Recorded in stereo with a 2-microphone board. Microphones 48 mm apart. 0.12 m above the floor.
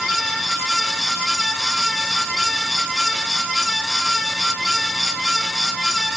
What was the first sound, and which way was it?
Only background noise.